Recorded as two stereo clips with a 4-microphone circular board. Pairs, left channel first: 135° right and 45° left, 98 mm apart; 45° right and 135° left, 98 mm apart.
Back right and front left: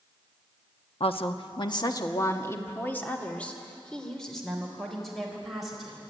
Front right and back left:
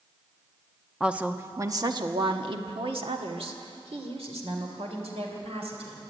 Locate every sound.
1.0 s a woman speaking: 145° right, 1.1 m; by 6.0 s 130° left, 4 m